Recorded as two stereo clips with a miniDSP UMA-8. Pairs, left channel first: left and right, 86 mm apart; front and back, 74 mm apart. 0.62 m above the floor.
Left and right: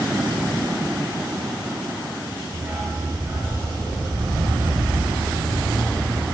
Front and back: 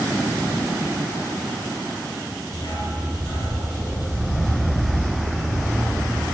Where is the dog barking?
35° right, 4 m; by 6.3 s 75° right, 3.5 m.